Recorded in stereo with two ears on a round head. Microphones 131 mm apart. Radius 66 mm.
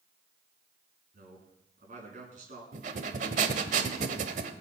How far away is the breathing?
About 1.2 m.